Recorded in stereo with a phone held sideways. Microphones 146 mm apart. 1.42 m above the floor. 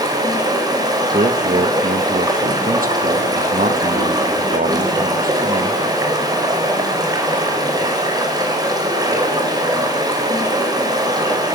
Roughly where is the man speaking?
Right.